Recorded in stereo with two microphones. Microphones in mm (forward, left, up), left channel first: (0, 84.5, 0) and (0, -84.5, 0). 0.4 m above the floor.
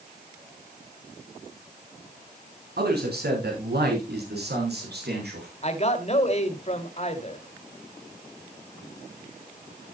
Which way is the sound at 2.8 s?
75° right (ahead or behind).